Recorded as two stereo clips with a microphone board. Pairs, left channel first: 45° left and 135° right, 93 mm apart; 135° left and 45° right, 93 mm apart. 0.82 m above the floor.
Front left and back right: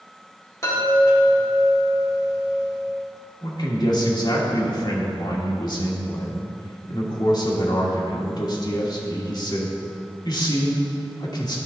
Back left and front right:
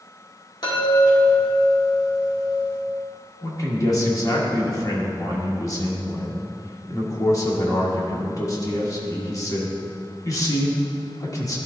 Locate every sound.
0.6 s a chime: 100° left, 2 m
3.4 s a man speaking: 85° left, 1.5 m